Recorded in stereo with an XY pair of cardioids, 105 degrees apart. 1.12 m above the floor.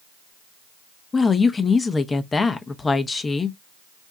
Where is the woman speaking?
30° left, 0.8 m.